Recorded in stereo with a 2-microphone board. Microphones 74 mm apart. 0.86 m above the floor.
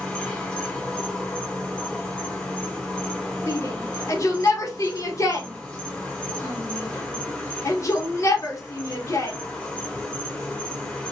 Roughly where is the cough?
I don't hear a cough.